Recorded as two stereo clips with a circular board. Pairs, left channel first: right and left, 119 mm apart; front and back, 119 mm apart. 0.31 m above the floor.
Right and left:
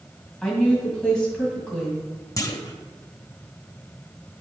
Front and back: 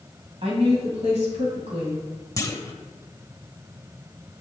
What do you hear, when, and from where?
0.4 s a woman speaking: 170° right, 1.6 m
2.4 s a clunk: 45° right, 0.5 m